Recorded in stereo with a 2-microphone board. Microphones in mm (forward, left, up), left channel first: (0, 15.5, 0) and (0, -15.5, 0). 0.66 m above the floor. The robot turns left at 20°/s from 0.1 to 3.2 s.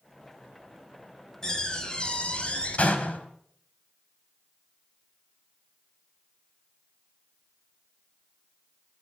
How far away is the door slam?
About 3.5 m.